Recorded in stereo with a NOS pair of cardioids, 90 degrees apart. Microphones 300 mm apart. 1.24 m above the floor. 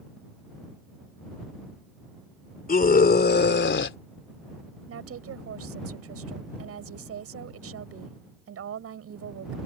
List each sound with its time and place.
2.7 s a scream: 30° left; by 4.0 s 45° left
4.9 s a woman speaking: 55° right